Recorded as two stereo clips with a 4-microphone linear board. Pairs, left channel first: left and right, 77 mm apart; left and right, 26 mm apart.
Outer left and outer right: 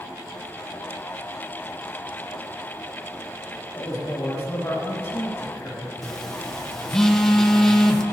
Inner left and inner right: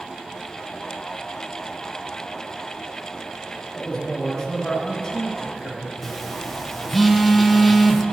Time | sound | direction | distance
3.8 | a man speaking | 35° left (ahead or behind) | 3 m
6.0 | a phone buzzing | 5° left (ahead or behind) | 1.0 m